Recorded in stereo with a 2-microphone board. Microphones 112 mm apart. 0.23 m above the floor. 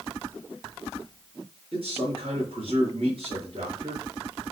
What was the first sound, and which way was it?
A man speaking, 50° right (ahead or behind).